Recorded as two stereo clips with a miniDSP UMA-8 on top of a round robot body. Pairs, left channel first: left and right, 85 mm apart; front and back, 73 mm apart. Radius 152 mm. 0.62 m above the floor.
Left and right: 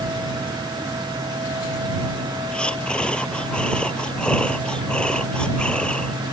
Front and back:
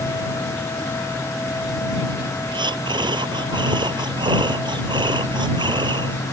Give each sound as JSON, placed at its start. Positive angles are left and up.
{"t": 2.5, "sound": "breathing", "azimuth_deg": 170}